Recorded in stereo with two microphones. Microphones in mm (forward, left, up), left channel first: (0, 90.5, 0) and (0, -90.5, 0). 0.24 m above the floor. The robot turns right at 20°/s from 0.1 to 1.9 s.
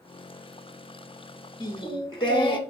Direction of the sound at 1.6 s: 25° left (ahead or behind).